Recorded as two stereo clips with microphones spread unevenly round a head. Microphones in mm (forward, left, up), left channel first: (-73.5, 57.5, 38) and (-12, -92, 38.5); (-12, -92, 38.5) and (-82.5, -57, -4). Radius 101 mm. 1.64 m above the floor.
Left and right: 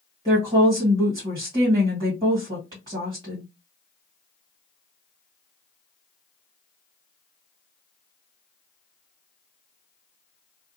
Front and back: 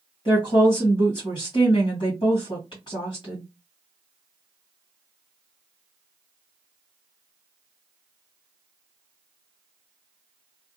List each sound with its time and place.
0.2 s a woman speaking: straight ahead, 1.4 m